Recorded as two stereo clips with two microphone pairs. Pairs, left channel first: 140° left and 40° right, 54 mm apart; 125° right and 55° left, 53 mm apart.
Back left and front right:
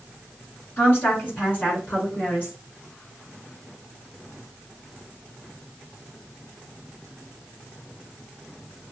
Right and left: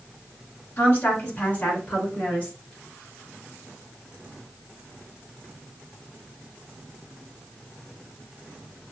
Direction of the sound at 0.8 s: 170° right.